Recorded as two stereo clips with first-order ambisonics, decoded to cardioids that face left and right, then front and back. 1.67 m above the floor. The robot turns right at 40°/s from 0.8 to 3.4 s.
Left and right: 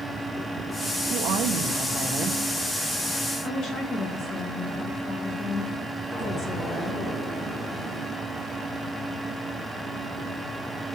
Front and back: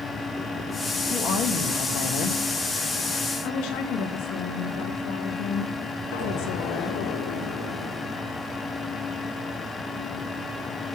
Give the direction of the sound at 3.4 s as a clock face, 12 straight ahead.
11 o'clock.